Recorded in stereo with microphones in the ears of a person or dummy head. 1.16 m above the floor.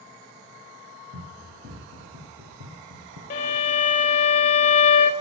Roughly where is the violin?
Left.